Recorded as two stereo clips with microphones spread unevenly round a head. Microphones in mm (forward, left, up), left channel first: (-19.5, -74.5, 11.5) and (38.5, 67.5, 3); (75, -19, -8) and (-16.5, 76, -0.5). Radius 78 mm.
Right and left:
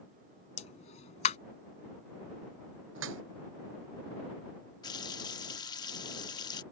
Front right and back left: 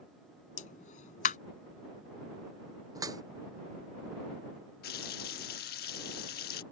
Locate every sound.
0.6 s a pop: 75° right
3.0 s dripping: 70° left
4.8 s a running tap: 45° right